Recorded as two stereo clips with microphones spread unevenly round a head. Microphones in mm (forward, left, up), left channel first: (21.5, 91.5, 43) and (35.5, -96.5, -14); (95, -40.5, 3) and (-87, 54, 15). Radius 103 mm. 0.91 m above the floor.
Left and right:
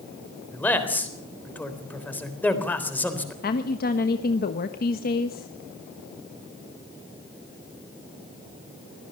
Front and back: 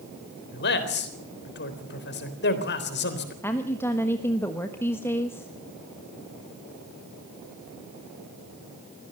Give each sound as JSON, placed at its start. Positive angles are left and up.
{"t": 0.5, "sound": "a man speaking", "azimuth_deg": 10, "distance_m": 3.5}
{"t": 3.4, "sound": "a woman speaking", "azimuth_deg": 50, "distance_m": 1.3}